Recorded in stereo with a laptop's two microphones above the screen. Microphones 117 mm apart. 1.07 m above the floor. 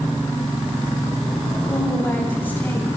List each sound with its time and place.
1.7 s a woman speaking: 15° left (ahead or behind), 8 m